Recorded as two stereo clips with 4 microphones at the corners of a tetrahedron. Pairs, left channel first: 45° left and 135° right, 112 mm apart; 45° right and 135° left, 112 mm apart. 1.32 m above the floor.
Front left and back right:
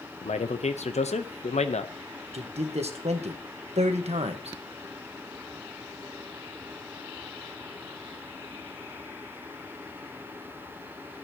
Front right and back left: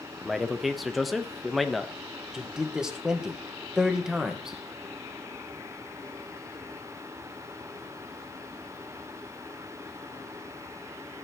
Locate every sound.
0.2 s a man speaking: 45° left, 0.9 m
2.3 s a man speaking: 140° right, 1.3 m